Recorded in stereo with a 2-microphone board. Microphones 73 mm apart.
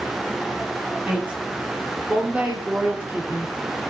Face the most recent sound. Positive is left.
turn(degrees=-25)  # may be behind; listen again after turning